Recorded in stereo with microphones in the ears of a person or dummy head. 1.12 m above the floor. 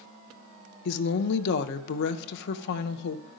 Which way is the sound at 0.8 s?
60° left (ahead or behind).